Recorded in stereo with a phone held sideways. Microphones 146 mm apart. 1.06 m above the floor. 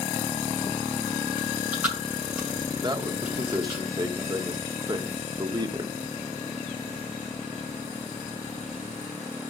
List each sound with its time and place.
1.4 s chewing: 10° right (ahead or behind), 8 m
2.8 s a man speaking: 30° right (ahead or behind), 1.1 m